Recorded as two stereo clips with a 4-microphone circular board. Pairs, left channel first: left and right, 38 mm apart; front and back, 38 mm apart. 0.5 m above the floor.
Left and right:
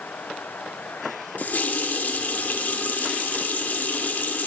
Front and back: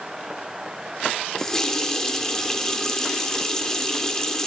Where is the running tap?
70° left, 0.6 m.